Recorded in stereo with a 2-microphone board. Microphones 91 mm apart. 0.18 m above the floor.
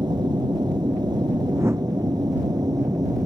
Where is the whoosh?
30° right (ahead or behind).